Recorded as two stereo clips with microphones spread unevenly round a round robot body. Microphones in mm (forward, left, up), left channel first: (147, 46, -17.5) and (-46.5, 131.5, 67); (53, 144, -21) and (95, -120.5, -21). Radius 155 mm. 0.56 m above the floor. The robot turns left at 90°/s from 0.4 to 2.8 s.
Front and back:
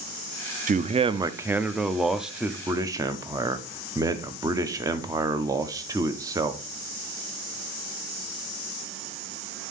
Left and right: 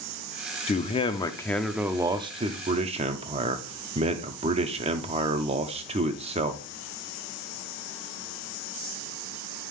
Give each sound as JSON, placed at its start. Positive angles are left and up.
{"t": 0.7, "sound": "a man speaking", "azimuth_deg": 100, "distance_m": 0.6}